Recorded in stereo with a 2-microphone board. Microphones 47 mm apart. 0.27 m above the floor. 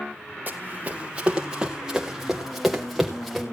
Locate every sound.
0.5 s running footsteps: 40° right (ahead or behind), 1.8 m; by 3.4 s centre (ahead or behind), 3.5 m